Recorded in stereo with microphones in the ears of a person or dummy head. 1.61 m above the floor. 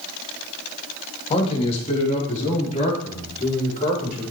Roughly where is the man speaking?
Left.